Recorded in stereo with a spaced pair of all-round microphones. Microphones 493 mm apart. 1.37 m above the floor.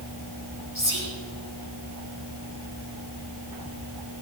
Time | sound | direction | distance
0.8 | whispering | 70° left (ahead or behind) | 4.5 m